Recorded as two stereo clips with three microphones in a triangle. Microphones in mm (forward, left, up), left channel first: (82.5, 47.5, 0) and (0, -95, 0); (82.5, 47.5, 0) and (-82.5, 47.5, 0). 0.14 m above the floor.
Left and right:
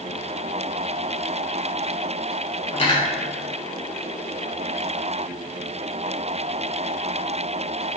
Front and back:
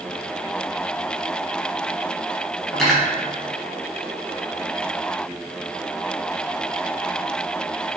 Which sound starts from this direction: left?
Cutlery clinking, at 2.7 s.